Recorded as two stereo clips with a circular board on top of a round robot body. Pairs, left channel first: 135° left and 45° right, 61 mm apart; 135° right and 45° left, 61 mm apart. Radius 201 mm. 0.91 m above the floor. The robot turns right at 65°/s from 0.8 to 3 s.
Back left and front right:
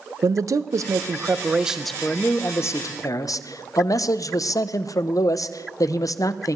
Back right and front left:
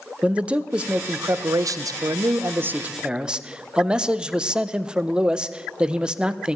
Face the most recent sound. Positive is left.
turn(degrees=120)